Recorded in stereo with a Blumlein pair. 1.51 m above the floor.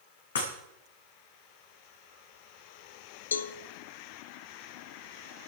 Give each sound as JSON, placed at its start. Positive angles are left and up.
{"t": 0.3, "sound": "breaking glass", "azimuth_deg": 65, "distance_m": 5.5}
{"t": 3.3, "sound": "a cowbell", "azimuth_deg": 70, "distance_m": 0.9}